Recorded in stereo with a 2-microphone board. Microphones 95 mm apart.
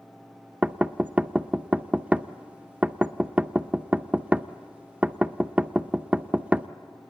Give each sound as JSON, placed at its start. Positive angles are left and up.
{"t": 0.6, "sound": "knocking", "side_deg": -15, "distance_m": 0.5}